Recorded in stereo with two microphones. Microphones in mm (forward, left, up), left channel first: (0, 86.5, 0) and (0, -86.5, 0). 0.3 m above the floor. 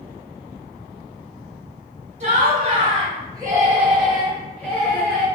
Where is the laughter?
45° right (ahead or behind), 1.6 m; by 5.3 s 20° left (ahead or behind), 1.8 m.